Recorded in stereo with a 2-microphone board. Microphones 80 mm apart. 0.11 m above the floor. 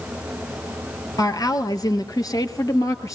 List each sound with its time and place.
1.2 s a woman speaking: 55° left (ahead or behind), 2 m; by 3.2 s 45° left (ahead or behind), 2 m